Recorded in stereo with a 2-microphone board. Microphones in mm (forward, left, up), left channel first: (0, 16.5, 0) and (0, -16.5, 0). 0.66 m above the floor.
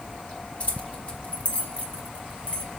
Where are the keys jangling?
45° left (ahead or behind), 1.9 m.